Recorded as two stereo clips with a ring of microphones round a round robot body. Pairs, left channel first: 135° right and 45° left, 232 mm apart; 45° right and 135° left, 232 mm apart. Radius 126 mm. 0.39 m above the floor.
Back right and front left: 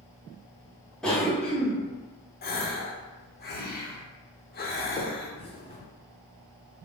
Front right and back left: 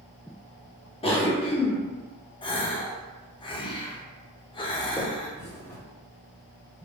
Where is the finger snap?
110° right, 1.0 m.